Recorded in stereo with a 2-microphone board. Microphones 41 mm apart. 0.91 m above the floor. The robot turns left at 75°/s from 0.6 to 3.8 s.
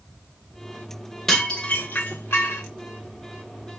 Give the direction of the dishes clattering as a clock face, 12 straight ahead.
6 o'clock.